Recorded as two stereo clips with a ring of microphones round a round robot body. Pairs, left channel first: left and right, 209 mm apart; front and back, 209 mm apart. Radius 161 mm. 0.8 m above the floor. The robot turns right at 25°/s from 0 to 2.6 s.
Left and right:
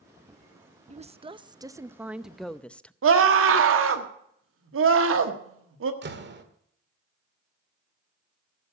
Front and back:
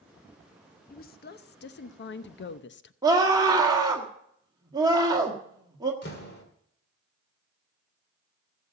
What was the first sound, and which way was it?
A woman speaking, 35° right.